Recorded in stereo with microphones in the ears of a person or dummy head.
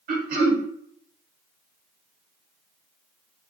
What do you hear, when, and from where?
0.1 s throat clearing: 50° right (ahead or behind), 1.3 m